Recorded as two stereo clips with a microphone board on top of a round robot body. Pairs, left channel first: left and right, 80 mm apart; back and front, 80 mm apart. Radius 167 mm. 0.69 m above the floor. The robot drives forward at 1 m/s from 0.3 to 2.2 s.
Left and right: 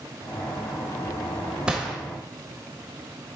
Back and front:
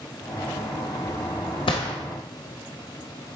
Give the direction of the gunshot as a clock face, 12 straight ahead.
6 o'clock.